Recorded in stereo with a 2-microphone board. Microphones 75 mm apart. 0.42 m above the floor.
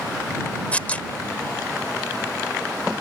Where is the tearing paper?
20° left (ahead or behind).